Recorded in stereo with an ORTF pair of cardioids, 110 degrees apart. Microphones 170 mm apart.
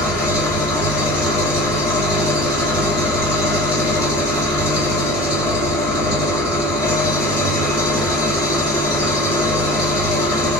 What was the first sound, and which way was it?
An engine running, 15° left.